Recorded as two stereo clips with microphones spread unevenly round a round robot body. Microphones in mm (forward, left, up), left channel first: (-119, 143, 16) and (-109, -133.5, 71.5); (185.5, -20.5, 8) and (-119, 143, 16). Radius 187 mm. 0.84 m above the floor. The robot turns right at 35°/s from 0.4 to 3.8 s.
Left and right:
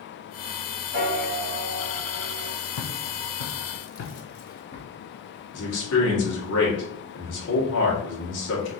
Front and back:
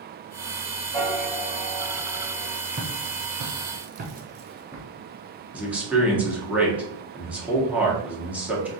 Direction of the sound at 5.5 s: 65° left.